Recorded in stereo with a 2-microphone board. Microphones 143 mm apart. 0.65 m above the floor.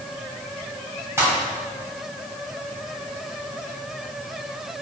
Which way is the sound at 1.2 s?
20° right (ahead or behind).